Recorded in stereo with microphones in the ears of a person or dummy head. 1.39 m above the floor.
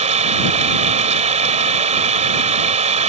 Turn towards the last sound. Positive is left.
turn(degrees=-30)  # may be behind; listen again after turning